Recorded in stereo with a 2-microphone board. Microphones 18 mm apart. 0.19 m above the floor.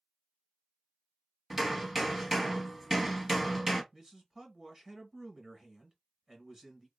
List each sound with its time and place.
1.5 s hammering: 5° right (ahead or behind), 0.9 m
3.9 s a man speaking: 25° right (ahead or behind), 1.1 m